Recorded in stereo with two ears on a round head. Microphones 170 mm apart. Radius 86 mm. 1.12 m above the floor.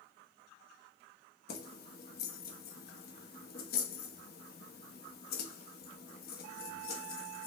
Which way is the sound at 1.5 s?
55° left (ahead or behind).